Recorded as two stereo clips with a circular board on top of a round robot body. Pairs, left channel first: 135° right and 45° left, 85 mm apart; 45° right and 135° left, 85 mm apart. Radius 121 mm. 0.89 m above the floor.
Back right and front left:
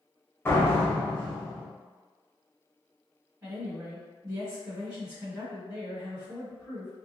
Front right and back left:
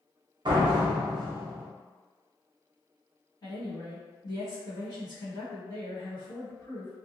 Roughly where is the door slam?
Behind.